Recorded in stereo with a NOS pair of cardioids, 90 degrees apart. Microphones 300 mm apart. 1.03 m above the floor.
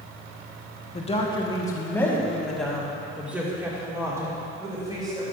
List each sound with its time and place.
0.9 s a woman speaking: 25° left, 1.4 m; by 5.2 s 15° right, 3.5 m